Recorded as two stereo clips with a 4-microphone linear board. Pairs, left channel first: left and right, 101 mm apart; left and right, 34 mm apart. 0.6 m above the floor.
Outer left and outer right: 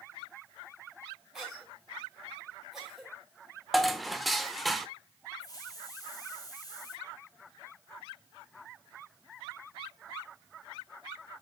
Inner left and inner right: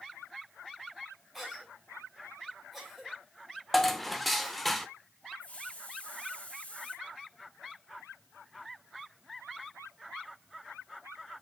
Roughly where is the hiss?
Left.